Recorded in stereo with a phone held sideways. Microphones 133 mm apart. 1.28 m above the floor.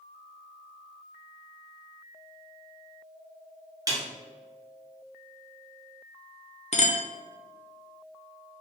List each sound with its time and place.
3.9 s a snare drum: 25° right (ahead or behind), 0.8 m
6.7 s a clink: 55° left (ahead or behind), 0.5 m